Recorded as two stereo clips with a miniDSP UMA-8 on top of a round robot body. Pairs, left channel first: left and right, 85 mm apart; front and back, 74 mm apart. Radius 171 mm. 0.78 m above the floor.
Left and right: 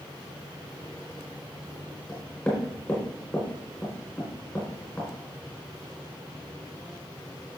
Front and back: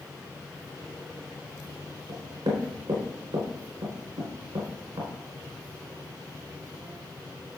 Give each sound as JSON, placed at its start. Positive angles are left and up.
{"t": 2.1, "sound": "knocking", "azimuth_deg": 160, "distance_m": 4.5}